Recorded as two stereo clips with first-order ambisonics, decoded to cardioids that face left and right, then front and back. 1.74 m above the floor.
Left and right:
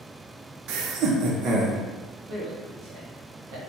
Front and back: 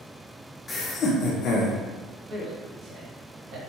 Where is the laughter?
75° right, 0.7 m; by 1.8 s 30° right, 1.2 m.